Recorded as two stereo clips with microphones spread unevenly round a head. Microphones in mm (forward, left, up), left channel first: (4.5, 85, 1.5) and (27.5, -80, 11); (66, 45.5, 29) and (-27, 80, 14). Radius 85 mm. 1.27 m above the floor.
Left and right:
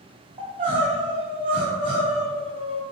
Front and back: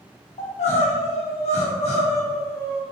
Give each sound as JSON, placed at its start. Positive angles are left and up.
{"t": 0.4, "sound": "crying", "azimuth_deg": -20, "distance_m": 1.4}